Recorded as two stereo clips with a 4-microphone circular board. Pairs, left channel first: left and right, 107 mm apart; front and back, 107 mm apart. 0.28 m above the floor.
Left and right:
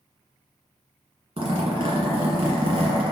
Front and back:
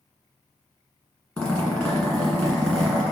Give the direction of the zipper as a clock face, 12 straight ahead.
3 o'clock.